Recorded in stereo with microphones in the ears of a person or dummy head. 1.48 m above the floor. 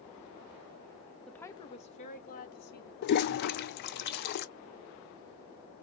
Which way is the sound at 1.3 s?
5° left (ahead or behind).